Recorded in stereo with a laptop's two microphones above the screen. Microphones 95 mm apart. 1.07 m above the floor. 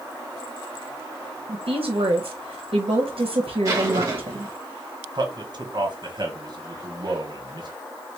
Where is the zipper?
30° right (ahead or behind), 1.4 m.